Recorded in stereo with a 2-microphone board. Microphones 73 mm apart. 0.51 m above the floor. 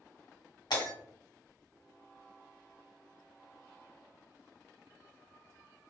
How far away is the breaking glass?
About 1.6 m.